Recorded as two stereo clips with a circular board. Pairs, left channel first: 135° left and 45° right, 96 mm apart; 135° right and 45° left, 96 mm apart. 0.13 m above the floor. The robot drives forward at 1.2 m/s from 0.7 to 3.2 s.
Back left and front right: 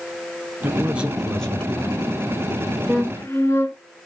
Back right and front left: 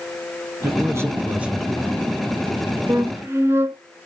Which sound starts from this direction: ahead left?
A flute, at 2.9 s.